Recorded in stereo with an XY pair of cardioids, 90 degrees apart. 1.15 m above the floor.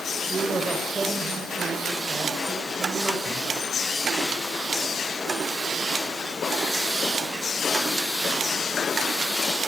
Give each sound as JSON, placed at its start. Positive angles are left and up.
{"t": 0.3, "sound": "a man speaking", "azimuth_deg": -35, "distance_m": 4.5}